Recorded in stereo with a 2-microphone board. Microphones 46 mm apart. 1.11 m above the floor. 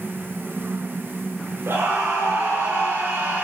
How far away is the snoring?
I don't hear snoring.